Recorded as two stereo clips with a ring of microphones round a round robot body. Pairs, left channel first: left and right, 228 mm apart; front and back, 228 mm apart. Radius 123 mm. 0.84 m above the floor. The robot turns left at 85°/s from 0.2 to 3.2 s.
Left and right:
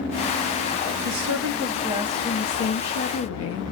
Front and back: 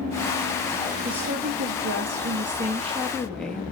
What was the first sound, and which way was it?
A woman speaking, 90° right.